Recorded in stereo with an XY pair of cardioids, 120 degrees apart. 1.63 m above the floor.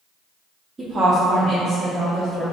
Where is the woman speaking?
30° right, 0.8 m; by 2.4 s 60° right, 1.6 m.